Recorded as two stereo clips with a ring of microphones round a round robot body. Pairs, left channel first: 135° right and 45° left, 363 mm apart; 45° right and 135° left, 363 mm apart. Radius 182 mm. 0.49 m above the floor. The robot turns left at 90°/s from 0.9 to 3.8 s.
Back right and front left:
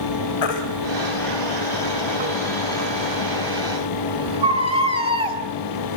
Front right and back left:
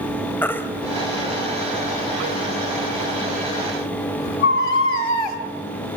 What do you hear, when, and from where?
0.4 s a baby crying: 130° right, 1.5 m; by 5.4 s 30° right, 1.5 m